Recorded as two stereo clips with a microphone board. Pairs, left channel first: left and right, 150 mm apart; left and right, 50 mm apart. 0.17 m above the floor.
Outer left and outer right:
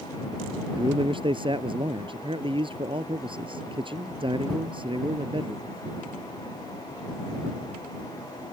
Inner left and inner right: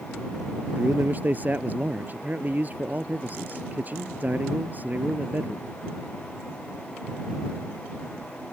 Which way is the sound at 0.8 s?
35° right (ahead or behind).